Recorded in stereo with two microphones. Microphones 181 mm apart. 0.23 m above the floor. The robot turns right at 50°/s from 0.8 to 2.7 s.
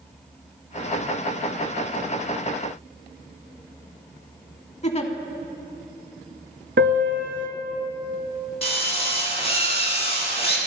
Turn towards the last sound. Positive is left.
turn(degrees=30)  # may be behind; listen again after turning